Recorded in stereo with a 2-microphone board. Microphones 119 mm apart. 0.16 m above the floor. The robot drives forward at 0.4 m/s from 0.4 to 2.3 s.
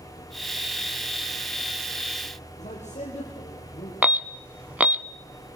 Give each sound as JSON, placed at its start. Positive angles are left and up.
{"t": 2.6, "sound": "a man speaking", "side_deg": 75, "distance_m": 5.5}
{"t": 4.0, "sound": "an alarm", "side_deg": -15, "distance_m": 0.7}